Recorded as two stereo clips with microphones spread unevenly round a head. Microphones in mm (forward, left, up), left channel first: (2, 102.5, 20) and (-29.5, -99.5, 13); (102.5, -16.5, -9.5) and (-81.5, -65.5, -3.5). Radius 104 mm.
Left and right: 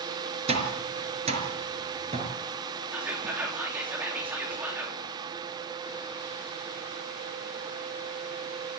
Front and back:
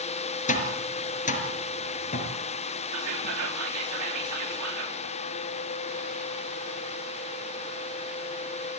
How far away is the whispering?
About 3.5 m.